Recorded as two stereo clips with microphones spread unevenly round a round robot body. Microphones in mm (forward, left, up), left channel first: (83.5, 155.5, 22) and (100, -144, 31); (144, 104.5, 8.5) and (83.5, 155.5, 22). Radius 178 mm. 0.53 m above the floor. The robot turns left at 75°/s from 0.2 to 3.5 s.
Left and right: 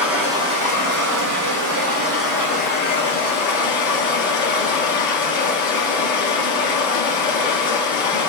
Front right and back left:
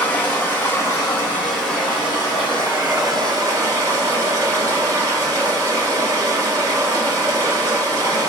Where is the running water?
Straight ahead, 1.1 m; by 8.3 s 110° left, 1.1 m.